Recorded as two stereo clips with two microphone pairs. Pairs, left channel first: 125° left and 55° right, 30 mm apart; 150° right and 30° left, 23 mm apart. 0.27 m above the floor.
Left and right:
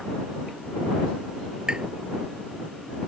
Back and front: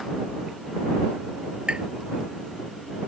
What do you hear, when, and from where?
1.7 s tapping: straight ahead